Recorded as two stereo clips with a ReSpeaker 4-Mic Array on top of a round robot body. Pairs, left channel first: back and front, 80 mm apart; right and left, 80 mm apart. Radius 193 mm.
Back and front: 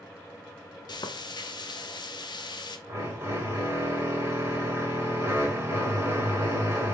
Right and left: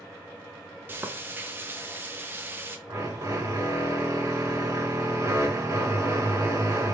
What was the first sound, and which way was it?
Frying, 155° left.